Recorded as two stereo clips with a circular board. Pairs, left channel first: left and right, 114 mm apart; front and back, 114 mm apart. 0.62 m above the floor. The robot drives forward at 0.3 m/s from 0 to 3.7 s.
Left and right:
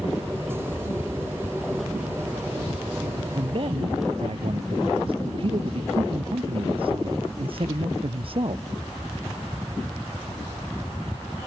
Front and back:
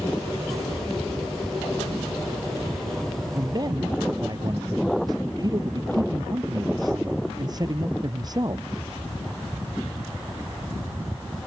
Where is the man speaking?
125° right.